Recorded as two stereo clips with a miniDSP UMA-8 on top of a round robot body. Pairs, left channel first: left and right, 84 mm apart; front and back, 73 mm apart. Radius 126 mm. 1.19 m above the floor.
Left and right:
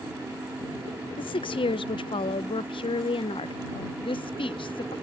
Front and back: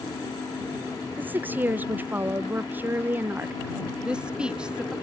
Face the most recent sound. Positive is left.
turn(degrees=100)